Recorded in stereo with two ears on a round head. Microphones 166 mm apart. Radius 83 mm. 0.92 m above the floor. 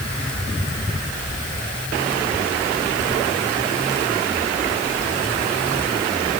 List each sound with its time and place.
Only background noise.